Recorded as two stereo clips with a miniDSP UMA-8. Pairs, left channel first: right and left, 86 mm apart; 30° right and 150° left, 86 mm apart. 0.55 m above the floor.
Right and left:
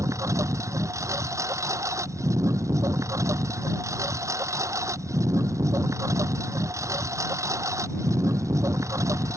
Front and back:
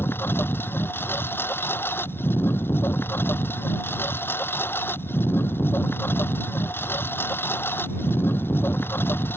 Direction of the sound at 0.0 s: 35° left.